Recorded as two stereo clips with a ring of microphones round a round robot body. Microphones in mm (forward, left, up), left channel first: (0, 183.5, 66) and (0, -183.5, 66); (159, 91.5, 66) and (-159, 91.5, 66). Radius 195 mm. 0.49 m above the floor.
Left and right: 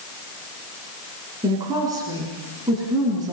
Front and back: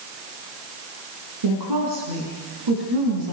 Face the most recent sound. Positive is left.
turn(degrees=-170)